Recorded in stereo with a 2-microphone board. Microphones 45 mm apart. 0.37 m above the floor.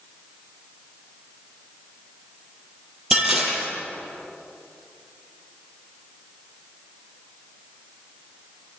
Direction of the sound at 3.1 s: 10° right (ahead or behind).